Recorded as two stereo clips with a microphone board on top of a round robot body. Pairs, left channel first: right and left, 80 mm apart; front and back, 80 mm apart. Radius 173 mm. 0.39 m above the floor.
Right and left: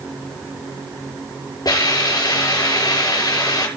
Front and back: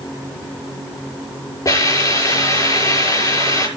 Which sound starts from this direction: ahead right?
A hiss, at 1.6 s.